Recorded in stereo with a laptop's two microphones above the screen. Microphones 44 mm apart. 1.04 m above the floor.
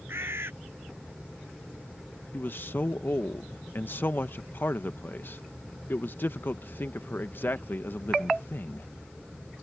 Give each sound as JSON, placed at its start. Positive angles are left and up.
{"t": 0.1, "sound": "a bird", "side_deg": -65}
{"t": 2.3, "sound": "a man speaking", "side_deg": 55}